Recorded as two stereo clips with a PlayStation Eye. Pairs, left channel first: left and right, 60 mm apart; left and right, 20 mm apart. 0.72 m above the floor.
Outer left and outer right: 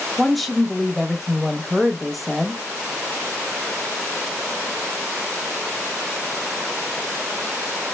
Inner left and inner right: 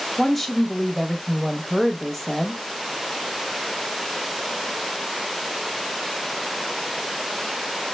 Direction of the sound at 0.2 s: Centre (ahead or behind).